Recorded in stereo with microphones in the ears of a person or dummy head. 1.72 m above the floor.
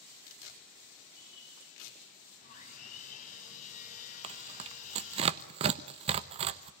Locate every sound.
0.3 s tearing paper: 75° left (ahead or behind), 5 m
2.4 s sawing: 40° left (ahead or behind), 7 m
4.2 s tearing paper: 35° right (ahead or behind), 1.1 m